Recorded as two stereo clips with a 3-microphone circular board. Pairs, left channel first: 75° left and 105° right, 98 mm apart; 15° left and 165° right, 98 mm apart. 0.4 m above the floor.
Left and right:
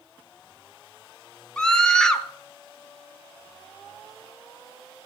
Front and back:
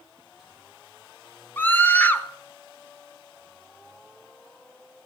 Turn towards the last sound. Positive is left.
turn(degrees=10)